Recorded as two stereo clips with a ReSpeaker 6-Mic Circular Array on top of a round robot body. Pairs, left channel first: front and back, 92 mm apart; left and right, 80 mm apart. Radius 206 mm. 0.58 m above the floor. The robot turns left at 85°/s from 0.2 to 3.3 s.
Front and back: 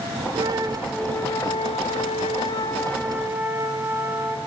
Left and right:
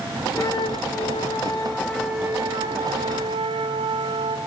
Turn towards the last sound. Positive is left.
turn(degrees=-110)